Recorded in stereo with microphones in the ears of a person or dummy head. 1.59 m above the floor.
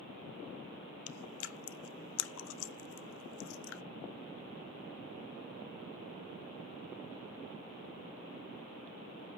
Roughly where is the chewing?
Left.